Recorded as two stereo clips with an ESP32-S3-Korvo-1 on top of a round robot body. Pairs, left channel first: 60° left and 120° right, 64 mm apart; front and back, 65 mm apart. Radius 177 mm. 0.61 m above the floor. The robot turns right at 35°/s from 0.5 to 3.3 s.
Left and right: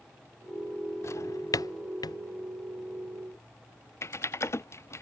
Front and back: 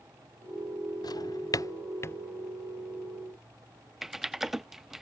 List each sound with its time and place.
1.0 s a drawer: 15° left; by 2.2 s 55° left
4.0 s typing on a keyboard: 95° left